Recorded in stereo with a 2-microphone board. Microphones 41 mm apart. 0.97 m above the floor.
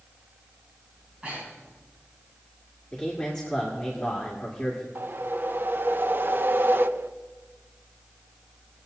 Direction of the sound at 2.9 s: 15° left (ahead or behind).